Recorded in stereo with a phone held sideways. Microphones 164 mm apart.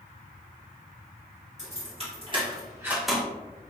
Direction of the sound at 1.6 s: 45° right (ahead or behind).